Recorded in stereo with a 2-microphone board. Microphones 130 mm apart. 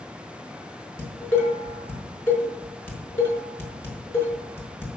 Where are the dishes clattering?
20° left (ahead or behind), 5.5 m.